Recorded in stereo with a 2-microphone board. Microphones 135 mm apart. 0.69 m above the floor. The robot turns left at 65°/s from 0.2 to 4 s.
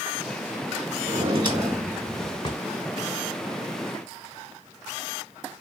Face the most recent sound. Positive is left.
turn(degrees=50)